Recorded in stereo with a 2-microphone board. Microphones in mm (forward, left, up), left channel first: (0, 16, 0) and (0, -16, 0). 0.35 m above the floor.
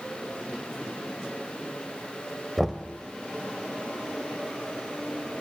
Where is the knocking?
10° right (ahead or behind), 0.9 m.